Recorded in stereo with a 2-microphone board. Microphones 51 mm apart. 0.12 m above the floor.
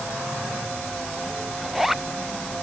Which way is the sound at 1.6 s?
5° right (ahead or behind).